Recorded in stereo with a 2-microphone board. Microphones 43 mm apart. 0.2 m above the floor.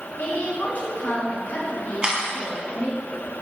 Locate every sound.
0.2 s a woman speaking: 45° left (ahead or behind), 2.5 m
2.0 s a camera shutter: 20° right (ahead or behind), 2 m